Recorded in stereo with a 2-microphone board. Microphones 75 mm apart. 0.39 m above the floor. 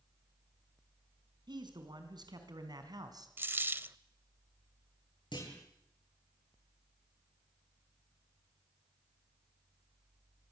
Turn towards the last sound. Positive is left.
turn(degrees=80)